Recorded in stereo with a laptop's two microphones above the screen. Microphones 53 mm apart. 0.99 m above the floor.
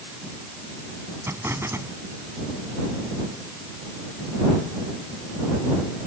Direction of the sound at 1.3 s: 55° right (ahead or behind).